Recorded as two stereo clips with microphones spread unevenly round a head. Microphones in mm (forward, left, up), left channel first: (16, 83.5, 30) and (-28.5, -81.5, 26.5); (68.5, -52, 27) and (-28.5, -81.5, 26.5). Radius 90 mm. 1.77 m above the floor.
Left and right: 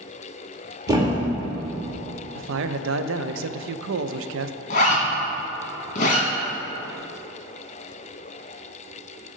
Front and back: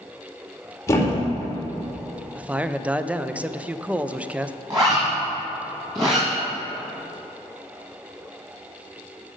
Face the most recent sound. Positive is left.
turn(degrees=125)